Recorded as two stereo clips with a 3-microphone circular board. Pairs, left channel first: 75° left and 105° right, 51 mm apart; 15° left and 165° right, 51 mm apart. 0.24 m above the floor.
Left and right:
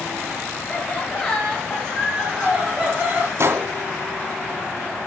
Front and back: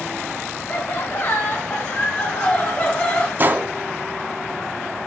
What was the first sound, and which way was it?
Laughter, 20° left.